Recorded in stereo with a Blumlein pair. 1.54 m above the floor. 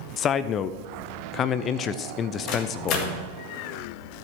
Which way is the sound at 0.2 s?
30° left.